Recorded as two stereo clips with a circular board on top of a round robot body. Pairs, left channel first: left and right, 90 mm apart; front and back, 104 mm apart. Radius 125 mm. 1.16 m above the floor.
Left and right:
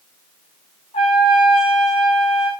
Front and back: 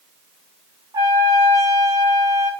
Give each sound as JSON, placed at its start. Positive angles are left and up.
{"t": 0.9, "sound": "a trumpet", "azimuth_deg": 120, "distance_m": 1.3}